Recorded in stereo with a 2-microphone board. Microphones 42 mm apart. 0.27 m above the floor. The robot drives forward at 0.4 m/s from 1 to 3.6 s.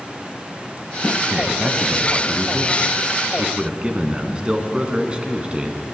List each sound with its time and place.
1.3 s a man speaking: 30° right (ahead or behind), 2 m; by 5.8 s 25° right (ahead or behind), 3 m